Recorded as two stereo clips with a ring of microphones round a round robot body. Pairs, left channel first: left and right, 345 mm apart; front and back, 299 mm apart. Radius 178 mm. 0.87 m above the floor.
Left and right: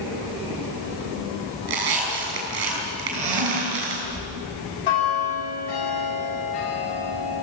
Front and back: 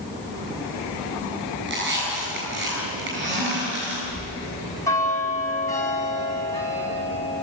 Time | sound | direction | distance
1.6 | a squeak | 120° right | 8 m
4.1 | a bell | 80° left | 7 m